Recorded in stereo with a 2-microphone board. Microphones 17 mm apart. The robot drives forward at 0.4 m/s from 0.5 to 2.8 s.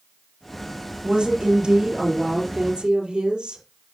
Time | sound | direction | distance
1.0 | a woman speaking | 65° right (ahead or behind) | 4 m